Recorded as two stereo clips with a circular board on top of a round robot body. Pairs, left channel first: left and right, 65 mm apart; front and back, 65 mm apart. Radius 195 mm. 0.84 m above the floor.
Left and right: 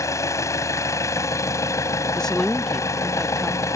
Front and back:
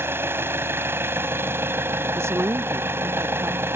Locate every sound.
0.0 s an engine running: 130° left
2.1 s a woman speaking: 170° left